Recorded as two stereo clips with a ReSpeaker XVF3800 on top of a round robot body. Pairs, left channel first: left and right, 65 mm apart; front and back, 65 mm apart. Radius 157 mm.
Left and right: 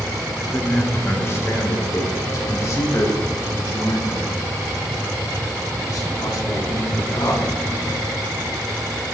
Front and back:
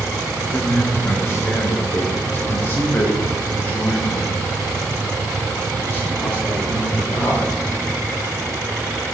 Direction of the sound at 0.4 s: 35° left.